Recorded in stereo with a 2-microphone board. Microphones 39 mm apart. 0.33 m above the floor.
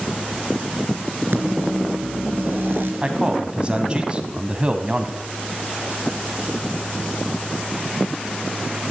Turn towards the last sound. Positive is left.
turn(degrees=-30)  # may be behind; listen again after turning